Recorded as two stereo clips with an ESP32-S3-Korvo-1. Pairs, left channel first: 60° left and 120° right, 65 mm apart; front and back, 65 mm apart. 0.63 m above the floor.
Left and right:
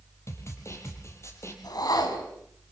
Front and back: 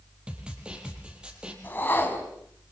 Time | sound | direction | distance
0.3 | a snare drum | 105° left | 4.5 m
1.6 | a whoosh | 60° left | 3.5 m